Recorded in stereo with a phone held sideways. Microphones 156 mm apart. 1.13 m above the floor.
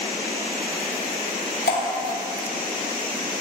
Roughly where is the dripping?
Left.